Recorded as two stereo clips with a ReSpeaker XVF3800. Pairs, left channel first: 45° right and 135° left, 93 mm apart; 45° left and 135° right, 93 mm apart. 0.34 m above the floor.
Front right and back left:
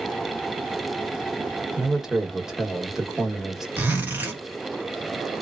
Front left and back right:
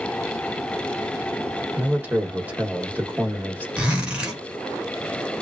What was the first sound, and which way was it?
A man speaking, 150° right.